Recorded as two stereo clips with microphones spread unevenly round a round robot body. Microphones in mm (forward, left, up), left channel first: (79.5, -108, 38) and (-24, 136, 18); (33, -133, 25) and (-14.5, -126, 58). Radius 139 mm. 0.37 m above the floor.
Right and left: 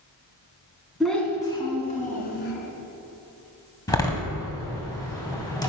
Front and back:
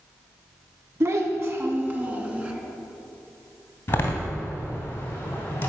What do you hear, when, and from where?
1.0 s a child speaking: 160° right, 2.0 m; by 2.5 s 120° right, 2.5 m
3.9 s a door slam: 10° left, 2.5 m